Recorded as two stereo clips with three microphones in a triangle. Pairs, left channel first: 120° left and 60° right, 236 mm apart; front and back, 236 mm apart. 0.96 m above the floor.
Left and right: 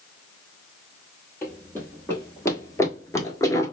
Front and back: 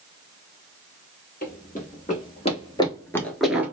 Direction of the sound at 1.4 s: 40° left.